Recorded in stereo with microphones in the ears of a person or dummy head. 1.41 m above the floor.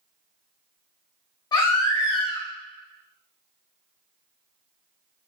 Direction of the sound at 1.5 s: 25° left (ahead or behind).